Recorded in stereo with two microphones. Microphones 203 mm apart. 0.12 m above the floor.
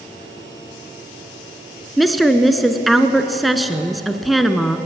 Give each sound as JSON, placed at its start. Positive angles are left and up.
{"t": 2.0, "sound": "a woman speaking", "side_deg": 0, "distance_m": 1.1}